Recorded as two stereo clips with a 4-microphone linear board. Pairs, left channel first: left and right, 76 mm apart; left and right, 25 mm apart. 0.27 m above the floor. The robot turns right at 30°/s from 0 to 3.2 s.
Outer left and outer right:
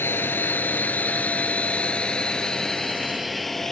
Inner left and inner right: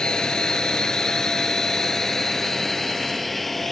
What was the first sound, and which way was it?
A drone, 30° left (ahead or behind).